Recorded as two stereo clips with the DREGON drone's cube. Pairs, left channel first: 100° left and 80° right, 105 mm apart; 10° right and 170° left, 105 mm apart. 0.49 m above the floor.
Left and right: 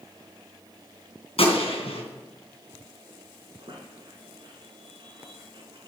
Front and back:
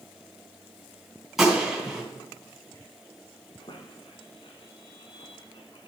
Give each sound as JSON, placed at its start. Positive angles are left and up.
{"t": 1.4, "sound": "a gunshot", "azimuth_deg": 85, "distance_m": 3.0}
{"t": 3.6, "sound": "a squeak", "azimuth_deg": -45, "distance_m": 1.6}